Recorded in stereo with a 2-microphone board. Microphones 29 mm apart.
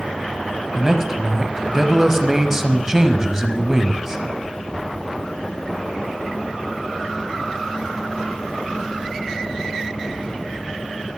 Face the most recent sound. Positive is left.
turn(degrees=-20)  # may be behind; listen again after turning